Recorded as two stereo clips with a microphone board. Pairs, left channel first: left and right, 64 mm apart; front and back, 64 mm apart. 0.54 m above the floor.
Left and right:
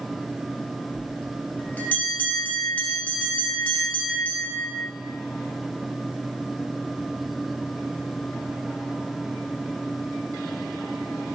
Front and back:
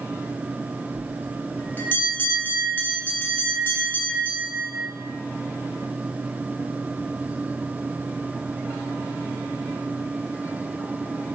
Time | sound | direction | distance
0.9 | a bell | 40° left | 0.5 m